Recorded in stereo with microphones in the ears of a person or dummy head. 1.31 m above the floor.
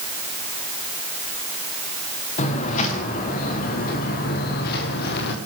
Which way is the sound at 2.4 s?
40° left (ahead or behind).